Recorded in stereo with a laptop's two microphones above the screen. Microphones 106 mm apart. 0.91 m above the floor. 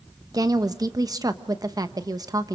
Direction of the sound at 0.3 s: 35° right (ahead or behind).